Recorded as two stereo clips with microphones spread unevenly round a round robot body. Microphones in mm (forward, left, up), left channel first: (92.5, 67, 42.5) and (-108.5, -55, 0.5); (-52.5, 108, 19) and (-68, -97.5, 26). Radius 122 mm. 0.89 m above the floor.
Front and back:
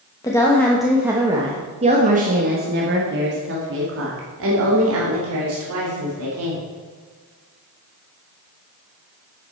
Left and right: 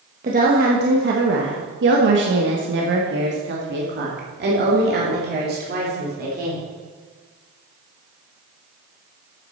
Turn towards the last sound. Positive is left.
turn(degrees=-135)